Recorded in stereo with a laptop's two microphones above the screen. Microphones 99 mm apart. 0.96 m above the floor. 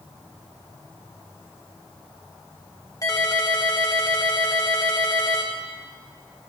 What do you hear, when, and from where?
3.0 s a ringtone: 35° left (ahead or behind), 1.0 m